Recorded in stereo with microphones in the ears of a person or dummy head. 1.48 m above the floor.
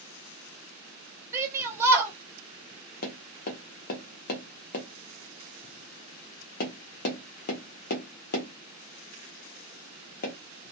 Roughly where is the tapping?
Left.